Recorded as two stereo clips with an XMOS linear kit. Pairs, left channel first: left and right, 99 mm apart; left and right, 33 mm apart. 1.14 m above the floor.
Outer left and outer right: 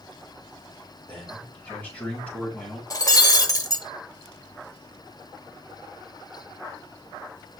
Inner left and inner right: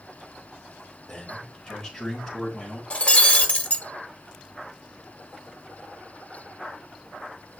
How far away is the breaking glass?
About 1.1 m.